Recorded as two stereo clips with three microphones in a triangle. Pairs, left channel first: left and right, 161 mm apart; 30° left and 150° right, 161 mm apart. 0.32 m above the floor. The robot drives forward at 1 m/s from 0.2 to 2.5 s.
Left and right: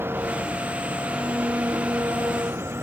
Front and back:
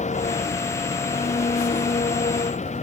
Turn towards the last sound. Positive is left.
turn(degrees=-15)